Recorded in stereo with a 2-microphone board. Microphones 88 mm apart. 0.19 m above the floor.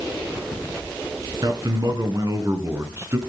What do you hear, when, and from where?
1.4 s a man speaking: 50° right (ahead or behind), 2.5 m; by 3.2 s 30° right (ahead or behind), 2.5 m